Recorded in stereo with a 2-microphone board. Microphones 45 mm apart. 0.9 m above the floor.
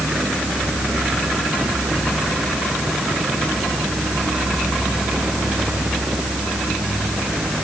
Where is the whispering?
I don't hear whispering.